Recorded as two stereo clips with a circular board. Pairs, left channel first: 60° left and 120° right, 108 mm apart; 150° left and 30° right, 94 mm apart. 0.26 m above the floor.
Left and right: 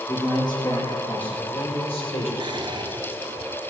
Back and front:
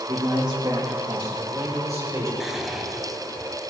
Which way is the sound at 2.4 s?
115° right.